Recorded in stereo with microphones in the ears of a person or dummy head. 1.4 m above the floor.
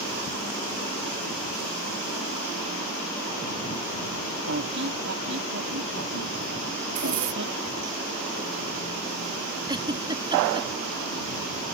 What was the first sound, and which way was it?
A squeak, 60° right (ahead or behind).